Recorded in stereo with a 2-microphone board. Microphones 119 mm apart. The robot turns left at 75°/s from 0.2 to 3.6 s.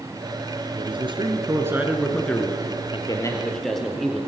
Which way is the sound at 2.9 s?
55° left.